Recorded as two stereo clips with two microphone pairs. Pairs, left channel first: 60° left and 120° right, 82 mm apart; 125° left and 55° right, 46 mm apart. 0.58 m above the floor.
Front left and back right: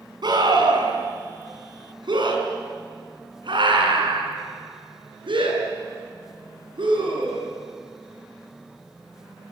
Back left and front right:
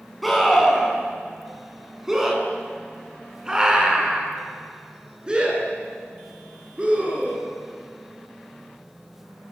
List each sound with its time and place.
0.2 s a scream: 145° right, 7 m; by 7.5 s 120° right, 10.5 m